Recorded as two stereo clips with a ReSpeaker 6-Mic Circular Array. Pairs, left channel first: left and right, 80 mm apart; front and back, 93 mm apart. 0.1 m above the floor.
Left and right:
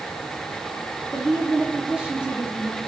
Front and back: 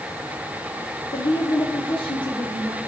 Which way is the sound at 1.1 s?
15° right.